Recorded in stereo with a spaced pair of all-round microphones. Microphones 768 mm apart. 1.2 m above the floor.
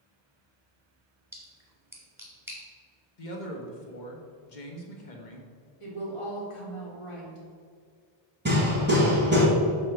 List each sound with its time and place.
1.3 s a splash: 5° right (ahead or behind), 1.5 m
3.2 s a man speaking: 75° left (ahead or behind), 1.4 m
5.8 s a woman speaking: 40° left (ahead or behind), 1.9 m
8.4 s hammering: 15° right (ahead or behind), 2.5 m